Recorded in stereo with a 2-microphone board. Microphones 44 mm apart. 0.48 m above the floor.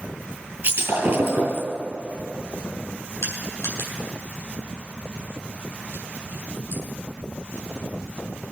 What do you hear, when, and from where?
0.6 s breaking glass: 60° right (ahead or behind), 4 m
3.2 s crushing: 80° left, 3.5 m